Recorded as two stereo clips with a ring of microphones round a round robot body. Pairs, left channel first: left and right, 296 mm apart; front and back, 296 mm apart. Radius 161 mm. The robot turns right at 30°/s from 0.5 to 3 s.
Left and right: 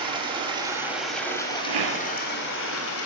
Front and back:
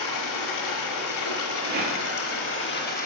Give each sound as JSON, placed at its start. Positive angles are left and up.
{"t": 0.0, "sound": "running water", "azimuth_deg": -15, "distance_m": 1.7}
{"t": 1.6, "sound": "a rattle", "azimuth_deg": -120, "distance_m": 1.4}